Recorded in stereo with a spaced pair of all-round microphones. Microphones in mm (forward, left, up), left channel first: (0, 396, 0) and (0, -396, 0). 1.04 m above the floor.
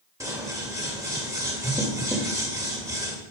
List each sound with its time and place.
0.2 s scissors: 5° right (ahead or behind), 1.5 m